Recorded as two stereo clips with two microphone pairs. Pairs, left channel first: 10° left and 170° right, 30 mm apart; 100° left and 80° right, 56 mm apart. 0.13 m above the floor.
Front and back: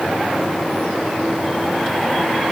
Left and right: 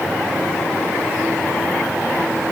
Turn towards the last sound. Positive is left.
No sound to turn to.